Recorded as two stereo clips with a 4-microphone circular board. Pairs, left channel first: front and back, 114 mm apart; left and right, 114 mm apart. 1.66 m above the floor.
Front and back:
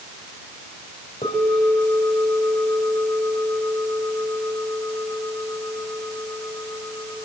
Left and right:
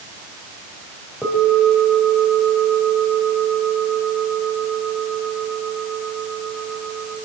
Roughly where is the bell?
Ahead.